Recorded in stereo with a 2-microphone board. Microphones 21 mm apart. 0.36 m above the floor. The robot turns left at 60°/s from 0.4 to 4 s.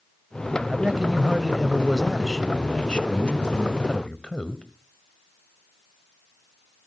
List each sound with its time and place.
0.7 s a man speaking: 110° right, 1.4 m; by 4.6 s 50° left, 1.4 m